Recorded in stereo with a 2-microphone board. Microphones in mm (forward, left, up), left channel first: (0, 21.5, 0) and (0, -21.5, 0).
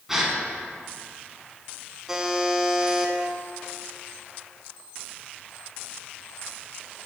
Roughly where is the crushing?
I don't hear crushing.